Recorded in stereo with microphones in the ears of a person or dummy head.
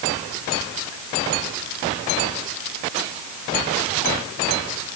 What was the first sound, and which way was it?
Only background noise.